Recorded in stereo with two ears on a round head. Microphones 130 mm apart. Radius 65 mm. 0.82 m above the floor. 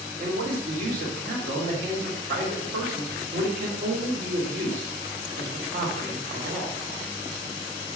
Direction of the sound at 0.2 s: 65° right (ahead or behind).